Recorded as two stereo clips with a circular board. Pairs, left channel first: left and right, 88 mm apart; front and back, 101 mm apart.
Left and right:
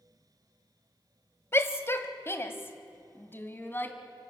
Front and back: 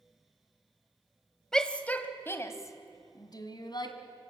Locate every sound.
1.5 s a shout: 80° left, 1.3 m; by 4.0 s 25° left, 2 m